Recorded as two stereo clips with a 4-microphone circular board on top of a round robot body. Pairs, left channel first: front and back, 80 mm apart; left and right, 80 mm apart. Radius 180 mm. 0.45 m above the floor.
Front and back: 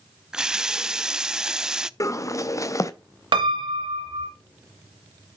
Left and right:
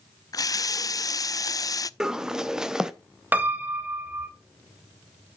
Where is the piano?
160° right, 0.9 m.